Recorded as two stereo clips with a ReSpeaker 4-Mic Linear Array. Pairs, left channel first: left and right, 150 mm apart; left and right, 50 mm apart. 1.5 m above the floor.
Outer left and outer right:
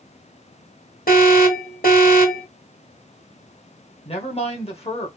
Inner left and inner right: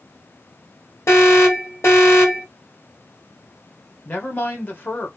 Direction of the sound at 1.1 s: 70° left (ahead or behind).